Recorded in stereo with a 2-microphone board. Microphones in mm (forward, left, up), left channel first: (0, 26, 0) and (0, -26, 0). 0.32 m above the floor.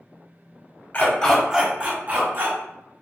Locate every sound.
0.9 s a dog barking: 35° left (ahead or behind), 0.6 m; by 2.6 s 45° right (ahead or behind), 1.0 m